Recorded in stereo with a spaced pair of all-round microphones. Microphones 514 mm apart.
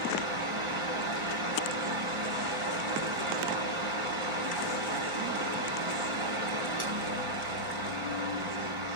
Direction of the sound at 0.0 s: 70° right (ahead or behind).